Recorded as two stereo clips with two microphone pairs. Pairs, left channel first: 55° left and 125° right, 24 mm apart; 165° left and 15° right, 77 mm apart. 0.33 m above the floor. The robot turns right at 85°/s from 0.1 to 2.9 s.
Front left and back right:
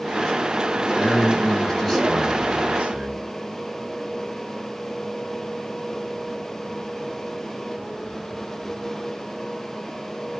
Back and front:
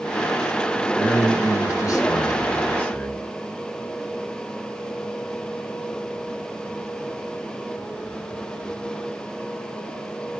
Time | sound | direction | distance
0.9 | a man speaking | 75° left | 2 m